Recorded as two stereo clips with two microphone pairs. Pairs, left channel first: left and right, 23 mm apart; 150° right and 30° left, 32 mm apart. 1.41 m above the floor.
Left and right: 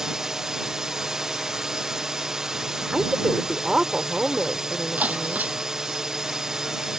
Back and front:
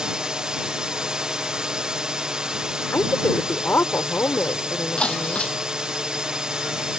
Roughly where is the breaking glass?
Right.